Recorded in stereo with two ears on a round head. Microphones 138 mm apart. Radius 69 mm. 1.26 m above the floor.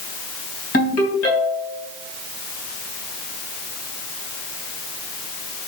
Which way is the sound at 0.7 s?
60° left (ahead or behind).